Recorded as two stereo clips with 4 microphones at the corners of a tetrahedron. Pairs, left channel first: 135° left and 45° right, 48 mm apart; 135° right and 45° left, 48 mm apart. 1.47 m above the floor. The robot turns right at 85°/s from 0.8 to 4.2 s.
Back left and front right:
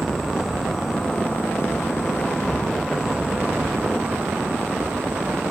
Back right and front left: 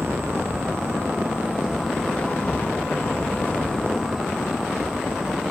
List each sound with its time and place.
0.0 s an insect: 45° left, 1.1 m; by 5.5 s 25° right, 1.1 m